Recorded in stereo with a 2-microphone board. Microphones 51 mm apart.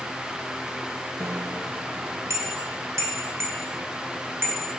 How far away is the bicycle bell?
About 3 m.